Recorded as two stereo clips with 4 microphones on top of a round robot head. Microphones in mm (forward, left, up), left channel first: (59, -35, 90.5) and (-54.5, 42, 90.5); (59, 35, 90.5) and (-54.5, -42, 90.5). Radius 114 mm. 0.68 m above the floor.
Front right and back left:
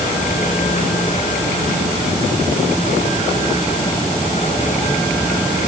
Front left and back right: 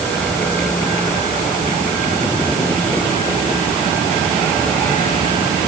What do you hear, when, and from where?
Only background noise.